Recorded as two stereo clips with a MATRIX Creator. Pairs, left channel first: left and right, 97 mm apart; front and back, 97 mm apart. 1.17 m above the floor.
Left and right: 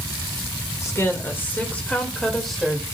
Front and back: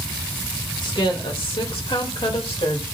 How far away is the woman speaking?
About 1.9 m.